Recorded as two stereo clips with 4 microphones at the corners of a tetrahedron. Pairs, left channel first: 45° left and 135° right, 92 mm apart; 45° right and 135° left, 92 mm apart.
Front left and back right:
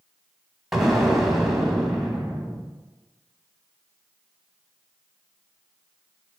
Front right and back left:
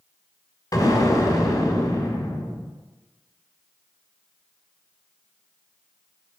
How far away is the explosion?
About 1.3 m.